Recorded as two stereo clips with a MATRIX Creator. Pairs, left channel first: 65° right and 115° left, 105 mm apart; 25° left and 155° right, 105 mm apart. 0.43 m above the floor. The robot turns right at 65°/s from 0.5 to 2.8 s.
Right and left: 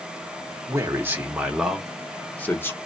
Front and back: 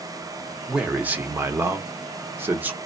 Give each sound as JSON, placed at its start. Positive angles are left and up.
{"t": 0.7, "sound": "a man speaking", "azimuth_deg": 125, "distance_m": 0.8}